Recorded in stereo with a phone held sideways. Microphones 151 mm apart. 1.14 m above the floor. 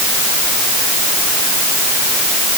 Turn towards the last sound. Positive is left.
No sound to turn to.